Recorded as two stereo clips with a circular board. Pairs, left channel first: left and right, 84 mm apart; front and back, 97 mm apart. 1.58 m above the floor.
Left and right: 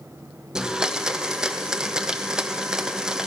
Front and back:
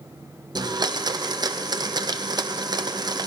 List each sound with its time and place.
0.6 s a blender: 170° right, 0.6 m